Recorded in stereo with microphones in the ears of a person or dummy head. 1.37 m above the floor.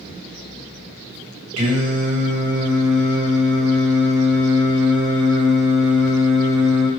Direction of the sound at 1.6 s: 80° right.